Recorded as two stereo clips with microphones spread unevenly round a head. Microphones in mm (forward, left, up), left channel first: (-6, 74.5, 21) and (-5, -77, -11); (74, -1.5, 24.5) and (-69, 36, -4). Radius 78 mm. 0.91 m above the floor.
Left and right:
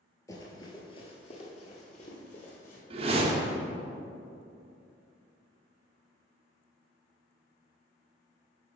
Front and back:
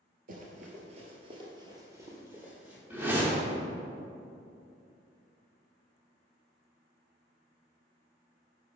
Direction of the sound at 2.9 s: 125° right.